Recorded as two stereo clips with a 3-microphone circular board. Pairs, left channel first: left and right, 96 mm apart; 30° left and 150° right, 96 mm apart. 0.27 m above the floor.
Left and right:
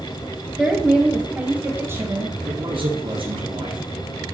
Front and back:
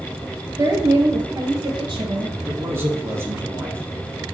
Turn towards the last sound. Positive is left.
turn(degrees=-90)